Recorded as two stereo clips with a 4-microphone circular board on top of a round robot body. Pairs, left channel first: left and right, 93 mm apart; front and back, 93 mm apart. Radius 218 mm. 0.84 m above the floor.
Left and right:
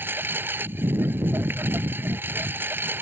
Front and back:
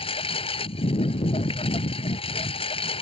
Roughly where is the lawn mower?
Ahead.